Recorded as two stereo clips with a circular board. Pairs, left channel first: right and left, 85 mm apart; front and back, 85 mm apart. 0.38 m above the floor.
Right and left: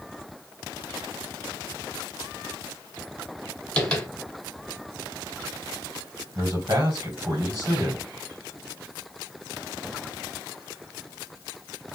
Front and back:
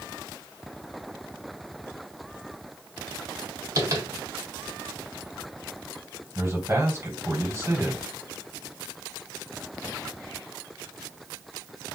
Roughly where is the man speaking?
Behind left.